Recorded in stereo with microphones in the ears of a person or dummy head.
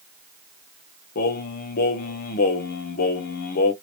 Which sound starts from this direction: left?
Singing, at 1.1 s.